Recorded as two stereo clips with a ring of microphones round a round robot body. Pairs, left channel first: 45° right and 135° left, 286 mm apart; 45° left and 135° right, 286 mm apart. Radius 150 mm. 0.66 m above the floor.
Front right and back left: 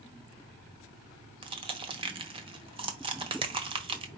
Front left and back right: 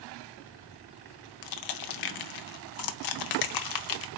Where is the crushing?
60° left, 0.6 m.